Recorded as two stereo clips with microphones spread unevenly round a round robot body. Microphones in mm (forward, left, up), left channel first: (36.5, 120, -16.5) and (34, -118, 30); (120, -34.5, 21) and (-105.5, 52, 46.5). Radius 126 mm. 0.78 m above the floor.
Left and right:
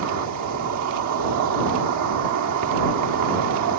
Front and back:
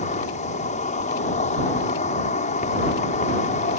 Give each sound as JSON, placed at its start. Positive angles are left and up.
{"t": 0.0, "sound": "an insect", "azimuth_deg": -80}